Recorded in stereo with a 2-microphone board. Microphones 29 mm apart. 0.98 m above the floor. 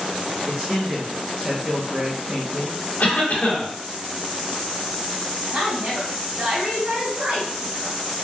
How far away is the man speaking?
About 0.5 m.